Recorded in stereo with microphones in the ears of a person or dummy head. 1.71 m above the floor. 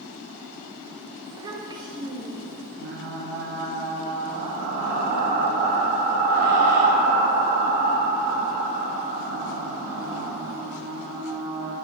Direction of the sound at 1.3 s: 20° right (ahead or behind).